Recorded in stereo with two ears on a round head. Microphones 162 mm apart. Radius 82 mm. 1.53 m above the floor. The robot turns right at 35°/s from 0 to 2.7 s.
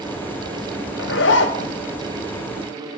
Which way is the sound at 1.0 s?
65° left (ahead or behind).